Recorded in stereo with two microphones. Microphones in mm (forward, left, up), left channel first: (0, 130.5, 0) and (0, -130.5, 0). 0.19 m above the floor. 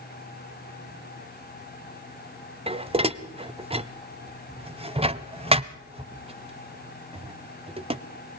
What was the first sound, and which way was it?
Dishes clattering, 20° right (ahead or behind).